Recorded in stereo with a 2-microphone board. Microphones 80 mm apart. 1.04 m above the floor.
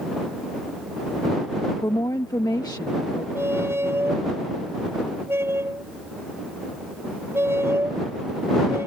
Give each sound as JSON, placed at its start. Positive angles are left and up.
{"t": 1.8, "sound": "a woman speaking", "side_deg": 55}
{"t": 3.4, "sound": "a squeak", "side_deg": -30}